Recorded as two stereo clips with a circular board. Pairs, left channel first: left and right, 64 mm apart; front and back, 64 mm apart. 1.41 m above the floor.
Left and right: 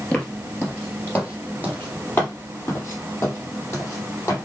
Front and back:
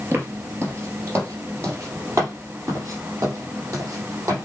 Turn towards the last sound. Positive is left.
turn(degrees=140)